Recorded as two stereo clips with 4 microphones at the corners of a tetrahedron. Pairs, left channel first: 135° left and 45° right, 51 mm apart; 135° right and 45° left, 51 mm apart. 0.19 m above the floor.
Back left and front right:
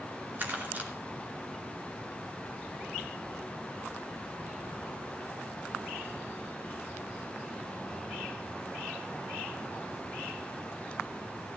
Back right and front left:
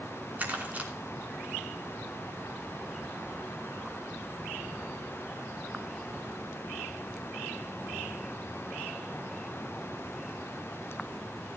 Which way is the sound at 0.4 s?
5° right.